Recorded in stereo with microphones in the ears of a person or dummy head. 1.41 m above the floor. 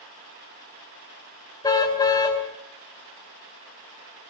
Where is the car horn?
15° left (ahead or behind), 3 m.